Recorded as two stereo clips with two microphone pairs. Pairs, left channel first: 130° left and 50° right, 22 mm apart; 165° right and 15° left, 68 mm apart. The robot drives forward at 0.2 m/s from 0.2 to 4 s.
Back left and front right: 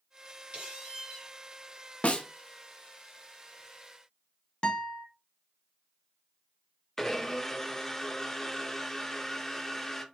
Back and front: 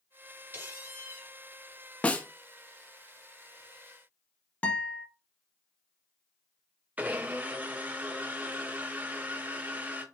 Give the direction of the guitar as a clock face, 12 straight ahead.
7 o'clock.